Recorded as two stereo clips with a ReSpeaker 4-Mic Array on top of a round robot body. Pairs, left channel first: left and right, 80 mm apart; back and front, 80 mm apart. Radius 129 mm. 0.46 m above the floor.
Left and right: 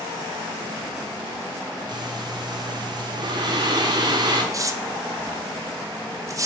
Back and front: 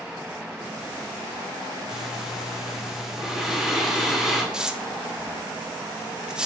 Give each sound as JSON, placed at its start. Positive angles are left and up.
{"t": 1.9, "sound": "breathing", "azimuth_deg": -85, "distance_m": 1.9}
{"t": 4.5, "sound": "tearing paper", "azimuth_deg": -75, "distance_m": 1.0}